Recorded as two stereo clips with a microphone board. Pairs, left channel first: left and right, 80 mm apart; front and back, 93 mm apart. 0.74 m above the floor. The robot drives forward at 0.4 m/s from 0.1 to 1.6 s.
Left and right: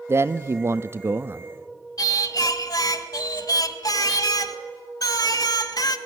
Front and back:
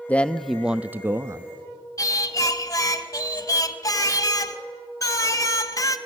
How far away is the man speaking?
About 0.6 m.